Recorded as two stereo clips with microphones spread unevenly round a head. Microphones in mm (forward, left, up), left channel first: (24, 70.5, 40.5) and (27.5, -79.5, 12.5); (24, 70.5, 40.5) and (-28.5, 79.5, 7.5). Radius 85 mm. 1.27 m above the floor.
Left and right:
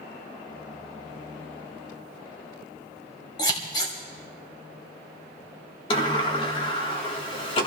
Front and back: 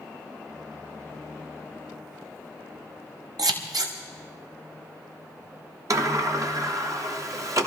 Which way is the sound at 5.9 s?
150° left.